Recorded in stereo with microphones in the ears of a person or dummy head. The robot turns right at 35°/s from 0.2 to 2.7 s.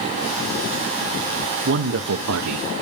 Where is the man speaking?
140° right, 0.8 m; by 2.7 s 105° right, 0.8 m.